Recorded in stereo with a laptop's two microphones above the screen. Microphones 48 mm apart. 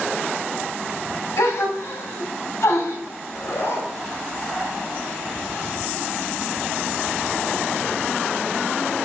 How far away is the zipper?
About 2.5 m.